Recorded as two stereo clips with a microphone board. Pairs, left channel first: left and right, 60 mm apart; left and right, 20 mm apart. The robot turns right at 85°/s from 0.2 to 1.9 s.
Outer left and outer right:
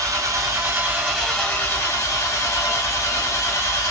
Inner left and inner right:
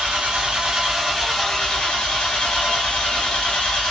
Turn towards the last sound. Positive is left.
turn(degrees=55)